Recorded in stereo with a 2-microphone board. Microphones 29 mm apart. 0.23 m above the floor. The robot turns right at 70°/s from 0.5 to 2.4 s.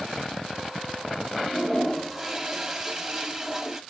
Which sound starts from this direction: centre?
A toilet flushing, at 1.4 s.